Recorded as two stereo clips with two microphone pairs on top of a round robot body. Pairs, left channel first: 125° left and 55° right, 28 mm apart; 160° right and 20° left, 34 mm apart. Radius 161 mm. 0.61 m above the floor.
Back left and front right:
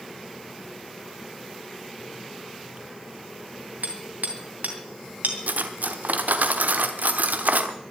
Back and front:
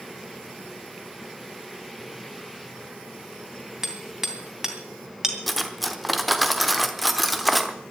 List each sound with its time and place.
3.8 s hammering: 60° right, 2.5 m
5.5 s cutlery clinking: 70° right, 1.1 m